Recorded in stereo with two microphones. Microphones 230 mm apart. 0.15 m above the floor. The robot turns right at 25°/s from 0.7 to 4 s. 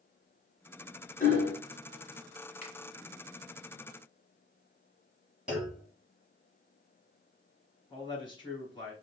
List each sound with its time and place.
1.2 s hammering: 35° left (ahead or behind), 1.6 m
2.6 s a finger snap: 30° left (ahead or behind), 1.7 m
5.5 s a clunk: 5° right (ahead or behind), 2 m
7.9 s a man speaking: 20° left (ahead or behind), 1.6 m